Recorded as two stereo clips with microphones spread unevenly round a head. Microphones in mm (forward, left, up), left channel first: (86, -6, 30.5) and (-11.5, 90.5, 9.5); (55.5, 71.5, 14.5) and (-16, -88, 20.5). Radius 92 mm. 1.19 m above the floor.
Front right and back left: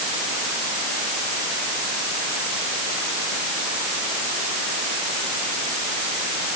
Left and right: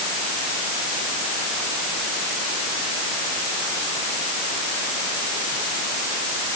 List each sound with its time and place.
Only background noise.